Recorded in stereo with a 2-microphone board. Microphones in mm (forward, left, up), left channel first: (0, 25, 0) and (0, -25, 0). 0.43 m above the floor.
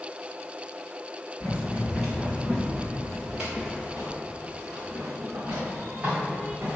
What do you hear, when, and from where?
1.4 s running footsteps: 5° right (ahead or behind), 2.5 m; by 6.8 s 30° right (ahead or behind), 5 m